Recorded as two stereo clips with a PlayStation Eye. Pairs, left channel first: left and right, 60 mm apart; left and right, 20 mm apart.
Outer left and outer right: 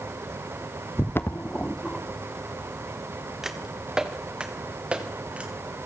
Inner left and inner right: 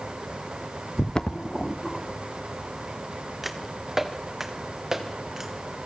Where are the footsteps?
45° left (ahead or behind), 1.3 m; by 5.5 s 20° right (ahead or behind), 4 m.